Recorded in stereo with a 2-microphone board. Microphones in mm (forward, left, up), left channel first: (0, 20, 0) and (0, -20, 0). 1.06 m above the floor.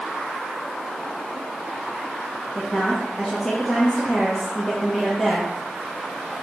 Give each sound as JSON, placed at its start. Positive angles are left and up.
{"t": 2.5, "sound": "a woman speaking", "side_deg": 10, "distance_m": 1.2}